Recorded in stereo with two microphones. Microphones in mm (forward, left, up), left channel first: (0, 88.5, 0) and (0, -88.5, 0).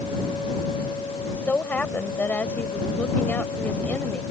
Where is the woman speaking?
10° left (ahead or behind).